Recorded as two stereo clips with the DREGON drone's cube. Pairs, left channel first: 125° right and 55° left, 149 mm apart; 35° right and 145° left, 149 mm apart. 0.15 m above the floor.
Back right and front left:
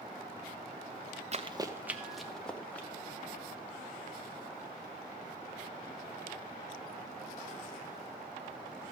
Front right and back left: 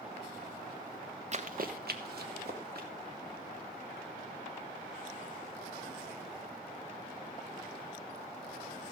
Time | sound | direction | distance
1.3 | running footsteps | 100° left | 0.8 m